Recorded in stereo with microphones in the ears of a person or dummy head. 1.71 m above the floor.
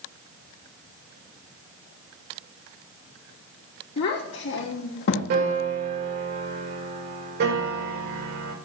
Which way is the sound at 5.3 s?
65° right (ahead or behind).